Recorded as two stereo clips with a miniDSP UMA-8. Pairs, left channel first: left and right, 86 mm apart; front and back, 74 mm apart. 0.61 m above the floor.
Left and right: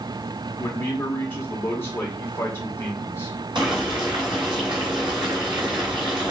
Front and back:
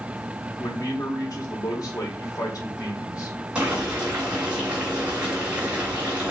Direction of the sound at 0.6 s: 30° left.